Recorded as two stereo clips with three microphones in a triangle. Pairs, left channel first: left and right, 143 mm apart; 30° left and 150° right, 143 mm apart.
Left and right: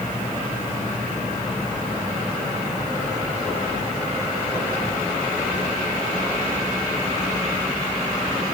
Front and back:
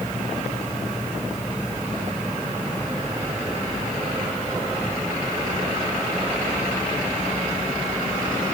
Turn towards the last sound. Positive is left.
No sound to turn to.